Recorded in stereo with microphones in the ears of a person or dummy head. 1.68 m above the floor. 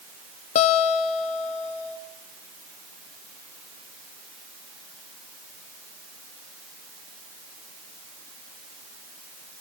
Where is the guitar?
35° left (ahead or behind), 0.9 m.